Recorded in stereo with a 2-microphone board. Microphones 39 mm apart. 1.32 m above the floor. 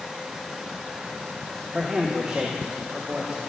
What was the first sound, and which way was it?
A man speaking, 30° right (ahead or behind).